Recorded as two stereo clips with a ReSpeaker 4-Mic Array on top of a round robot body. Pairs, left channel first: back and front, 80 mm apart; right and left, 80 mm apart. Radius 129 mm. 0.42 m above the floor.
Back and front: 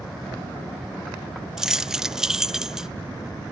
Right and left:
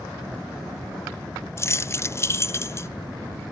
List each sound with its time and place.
1.6 s keys jangling: 80° right, 0.5 m